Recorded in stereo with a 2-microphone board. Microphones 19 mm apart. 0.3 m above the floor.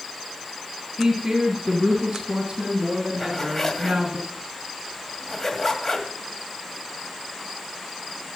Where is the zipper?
25° left (ahead or behind), 2 m.